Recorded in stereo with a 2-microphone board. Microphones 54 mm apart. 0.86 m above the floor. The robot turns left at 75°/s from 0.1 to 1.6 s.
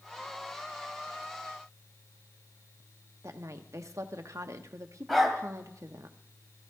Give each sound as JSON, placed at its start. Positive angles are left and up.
{"t": 3.2, "sound": "a woman speaking", "side_deg": -65, "distance_m": 1.1}
{"t": 5.1, "sound": "a dog barking", "side_deg": 0, "distance_m": 2.0}